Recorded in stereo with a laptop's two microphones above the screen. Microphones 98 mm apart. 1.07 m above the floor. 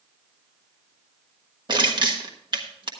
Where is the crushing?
50° right (ahead or behind), 1.3 m.